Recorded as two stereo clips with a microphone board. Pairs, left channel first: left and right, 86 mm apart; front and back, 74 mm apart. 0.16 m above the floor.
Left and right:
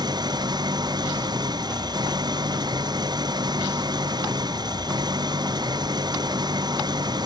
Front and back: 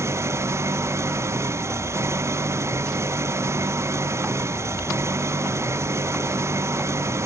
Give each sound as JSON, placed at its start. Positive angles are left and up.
{"t": 0.0, "sound": "an engine running", "azimuth_deg": -125}